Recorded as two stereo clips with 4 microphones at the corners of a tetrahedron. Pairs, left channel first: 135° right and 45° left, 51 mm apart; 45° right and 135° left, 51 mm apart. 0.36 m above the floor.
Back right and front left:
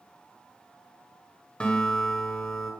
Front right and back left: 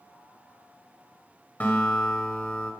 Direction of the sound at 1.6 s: 80° right.